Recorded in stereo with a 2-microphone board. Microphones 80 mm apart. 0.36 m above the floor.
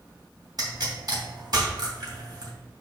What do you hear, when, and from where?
0.6 s a pop: 55° right (ahead or behind), 2.5 m